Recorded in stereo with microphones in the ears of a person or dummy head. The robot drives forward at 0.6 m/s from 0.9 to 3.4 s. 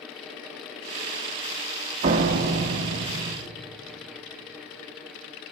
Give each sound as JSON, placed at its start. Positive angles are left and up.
{"t": 2.0, "sound": "a door slam", "side_deg": -35, "distance_m": 1.2}